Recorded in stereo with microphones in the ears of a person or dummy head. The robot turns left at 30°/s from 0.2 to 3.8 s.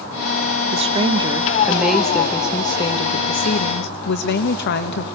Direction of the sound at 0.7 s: 150° right.